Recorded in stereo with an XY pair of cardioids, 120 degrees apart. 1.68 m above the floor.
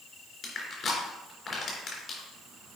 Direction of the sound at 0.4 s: 35° left.